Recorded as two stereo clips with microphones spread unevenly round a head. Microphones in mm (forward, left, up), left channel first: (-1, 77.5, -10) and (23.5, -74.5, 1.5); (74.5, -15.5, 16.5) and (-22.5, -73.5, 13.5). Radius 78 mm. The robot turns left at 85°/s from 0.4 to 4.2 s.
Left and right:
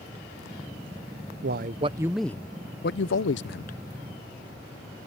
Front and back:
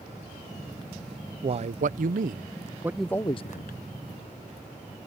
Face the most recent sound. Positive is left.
turn(degrees=20)